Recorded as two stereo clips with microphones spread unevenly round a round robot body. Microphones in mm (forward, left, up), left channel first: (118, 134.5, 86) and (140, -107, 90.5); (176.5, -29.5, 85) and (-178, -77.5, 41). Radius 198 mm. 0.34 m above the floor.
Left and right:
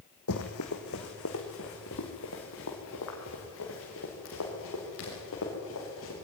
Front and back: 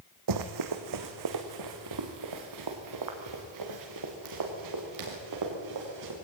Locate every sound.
0.3 s running footsteps: 145° left, 1.5 m